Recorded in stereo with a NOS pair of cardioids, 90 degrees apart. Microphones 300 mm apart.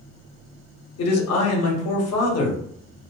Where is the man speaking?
55° left, 1.0 m.